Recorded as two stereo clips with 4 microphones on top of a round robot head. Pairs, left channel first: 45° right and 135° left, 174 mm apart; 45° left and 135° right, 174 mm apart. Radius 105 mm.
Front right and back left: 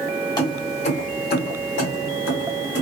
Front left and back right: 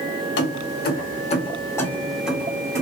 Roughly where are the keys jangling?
Ahead left.